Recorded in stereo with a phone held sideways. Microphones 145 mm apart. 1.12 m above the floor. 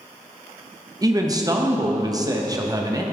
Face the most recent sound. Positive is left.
turn(degrees=-25)  # may be behind; listen again after turning